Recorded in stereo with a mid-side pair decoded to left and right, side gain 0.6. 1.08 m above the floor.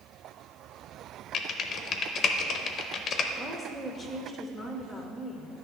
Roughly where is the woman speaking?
Ahead.